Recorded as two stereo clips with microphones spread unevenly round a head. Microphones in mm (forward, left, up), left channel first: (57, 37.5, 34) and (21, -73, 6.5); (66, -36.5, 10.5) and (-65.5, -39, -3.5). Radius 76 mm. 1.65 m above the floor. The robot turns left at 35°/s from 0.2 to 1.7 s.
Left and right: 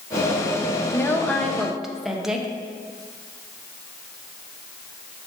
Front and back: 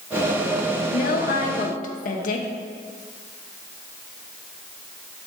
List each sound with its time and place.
0.9 s a woman speaking: 10° left, 1.2 m; by 2.5 s 20° right, 1.2 m